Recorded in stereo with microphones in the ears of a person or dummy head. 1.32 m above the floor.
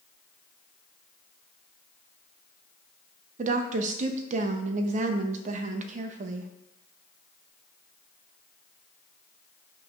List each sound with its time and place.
3.4 s a woman speaking: 45° right (ahead or behind), 0.5 m